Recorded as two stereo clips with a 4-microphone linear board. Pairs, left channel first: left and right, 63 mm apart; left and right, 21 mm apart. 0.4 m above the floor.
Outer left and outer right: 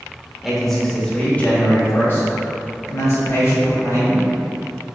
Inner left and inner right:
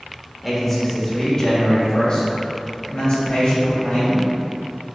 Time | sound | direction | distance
0.4 | a man speaking | 10° right (ahead or behind) | 0.9 m